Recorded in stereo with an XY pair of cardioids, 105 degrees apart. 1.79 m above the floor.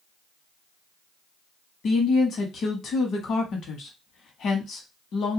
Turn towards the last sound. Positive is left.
turn(degrees=60)